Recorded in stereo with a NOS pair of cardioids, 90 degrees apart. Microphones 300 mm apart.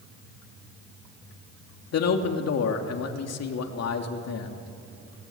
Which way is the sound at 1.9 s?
60° left.